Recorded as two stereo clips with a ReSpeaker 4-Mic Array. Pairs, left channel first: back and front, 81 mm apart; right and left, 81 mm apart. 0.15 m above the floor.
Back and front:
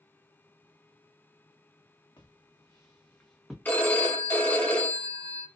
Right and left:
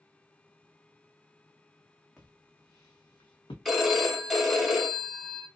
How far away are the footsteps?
About 0.9 m.